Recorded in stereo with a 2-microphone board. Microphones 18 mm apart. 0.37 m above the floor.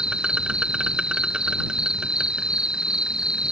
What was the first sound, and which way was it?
An insect, 60° right (ahead or behind).